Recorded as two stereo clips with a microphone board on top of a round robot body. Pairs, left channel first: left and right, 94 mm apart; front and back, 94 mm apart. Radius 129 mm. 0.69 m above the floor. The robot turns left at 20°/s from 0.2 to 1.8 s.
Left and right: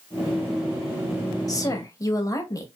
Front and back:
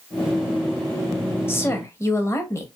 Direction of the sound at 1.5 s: 60° left.